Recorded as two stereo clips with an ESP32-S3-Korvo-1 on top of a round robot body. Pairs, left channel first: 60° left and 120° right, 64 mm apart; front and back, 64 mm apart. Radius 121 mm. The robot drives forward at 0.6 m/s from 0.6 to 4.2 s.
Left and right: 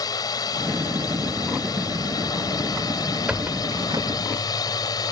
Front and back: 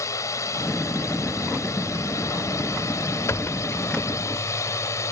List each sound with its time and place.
0.0 s a drone: 40° left
3.3 s a squeak: 45° right; by 4.2 s 95° right